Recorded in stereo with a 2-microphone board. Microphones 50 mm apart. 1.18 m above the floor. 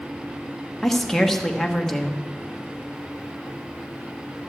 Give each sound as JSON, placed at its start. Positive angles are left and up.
{"t": 0.8, "sound": "a woman speaking", "side_deg": 5, "distance_m": 1.0}